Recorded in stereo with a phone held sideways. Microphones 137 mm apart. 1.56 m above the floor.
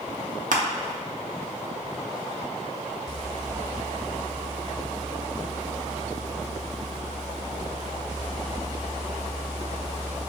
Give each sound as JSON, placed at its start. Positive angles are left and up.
{"t": 0.5, "sound": "crushing", "side_deg": -75, "distance_m": 0.5}